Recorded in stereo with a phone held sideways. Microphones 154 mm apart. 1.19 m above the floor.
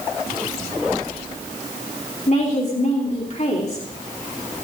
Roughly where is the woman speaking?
Left.